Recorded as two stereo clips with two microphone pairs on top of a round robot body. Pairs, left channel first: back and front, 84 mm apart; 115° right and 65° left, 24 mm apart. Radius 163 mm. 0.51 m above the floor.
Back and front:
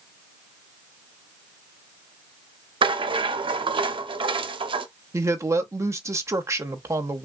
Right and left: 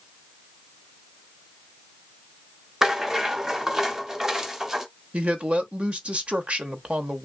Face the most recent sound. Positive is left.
turn(degrees=45)